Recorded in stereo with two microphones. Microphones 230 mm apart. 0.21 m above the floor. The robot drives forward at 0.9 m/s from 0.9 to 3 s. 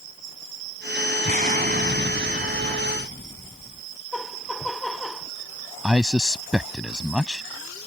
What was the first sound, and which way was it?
An explosion, 35° right (ahead or behind).